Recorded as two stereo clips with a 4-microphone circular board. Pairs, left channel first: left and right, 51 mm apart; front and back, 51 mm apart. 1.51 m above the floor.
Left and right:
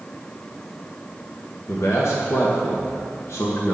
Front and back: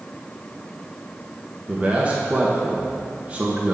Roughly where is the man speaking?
Behind left.